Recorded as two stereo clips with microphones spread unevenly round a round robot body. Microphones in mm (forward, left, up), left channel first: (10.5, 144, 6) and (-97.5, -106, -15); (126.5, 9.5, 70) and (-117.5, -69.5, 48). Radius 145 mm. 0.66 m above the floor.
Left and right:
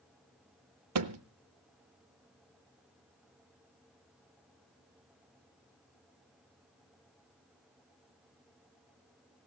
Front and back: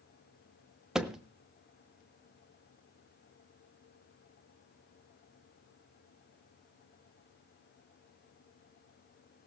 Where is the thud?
75° right, 0.6 m.